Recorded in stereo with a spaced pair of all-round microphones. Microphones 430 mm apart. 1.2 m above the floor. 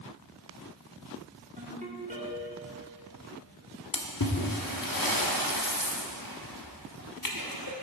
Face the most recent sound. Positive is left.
turn(degrees=50)  # may be behind; listen again after turning